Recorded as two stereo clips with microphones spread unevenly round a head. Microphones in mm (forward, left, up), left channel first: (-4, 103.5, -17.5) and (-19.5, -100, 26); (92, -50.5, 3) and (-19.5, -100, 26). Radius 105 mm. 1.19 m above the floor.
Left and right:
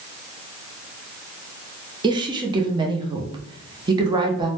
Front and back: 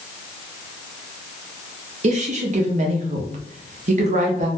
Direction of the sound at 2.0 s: 170° right.